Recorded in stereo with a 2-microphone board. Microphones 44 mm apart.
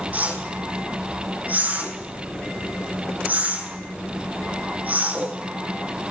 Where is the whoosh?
40° right (ahead or behind), 3 m.